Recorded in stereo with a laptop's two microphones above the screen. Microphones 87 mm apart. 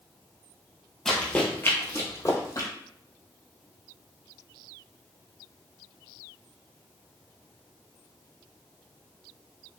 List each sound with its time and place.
1.1 s running footsteps: 5° left (ahead or behind), 1.2 m; by 2.7 s 40° left (ahead or behind), 1.7 m